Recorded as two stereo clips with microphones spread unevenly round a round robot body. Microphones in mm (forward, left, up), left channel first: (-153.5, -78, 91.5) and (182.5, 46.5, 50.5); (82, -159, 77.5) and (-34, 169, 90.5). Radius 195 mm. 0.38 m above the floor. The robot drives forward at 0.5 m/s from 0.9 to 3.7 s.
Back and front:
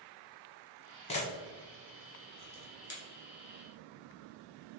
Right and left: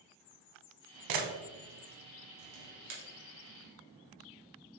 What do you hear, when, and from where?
1.1 s a camera shutter: 125° left, 0.8 m; by 3.0 s 155° left, 1.6 m